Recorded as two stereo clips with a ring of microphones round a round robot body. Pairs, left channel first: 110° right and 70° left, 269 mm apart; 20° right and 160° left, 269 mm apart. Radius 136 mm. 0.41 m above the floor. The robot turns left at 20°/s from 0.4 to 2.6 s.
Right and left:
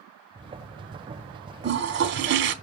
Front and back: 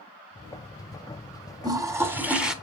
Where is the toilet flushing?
90° left, 1.0 m; by 2.5 s 70° left, 1.0 m.